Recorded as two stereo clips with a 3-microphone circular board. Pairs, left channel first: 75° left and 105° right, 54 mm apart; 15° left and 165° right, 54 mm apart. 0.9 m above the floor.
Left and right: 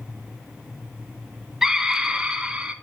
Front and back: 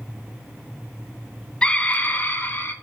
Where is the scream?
35° right, 0.8 m.